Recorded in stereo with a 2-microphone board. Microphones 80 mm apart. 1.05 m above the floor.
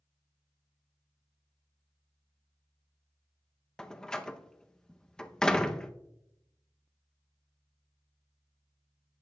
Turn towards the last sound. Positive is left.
turn(degrees=10)  # may be behind; listen again after turning